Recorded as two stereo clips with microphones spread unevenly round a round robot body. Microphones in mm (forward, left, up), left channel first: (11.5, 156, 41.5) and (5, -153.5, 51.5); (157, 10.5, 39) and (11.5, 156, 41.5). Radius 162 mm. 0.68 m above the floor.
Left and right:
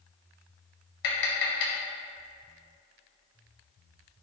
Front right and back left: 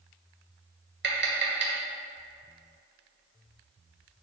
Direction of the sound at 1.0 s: 105° left.